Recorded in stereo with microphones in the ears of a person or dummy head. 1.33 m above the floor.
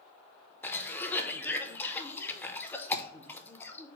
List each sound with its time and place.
0.6 s a cough: 10° left (ahead or behind), 0.6 m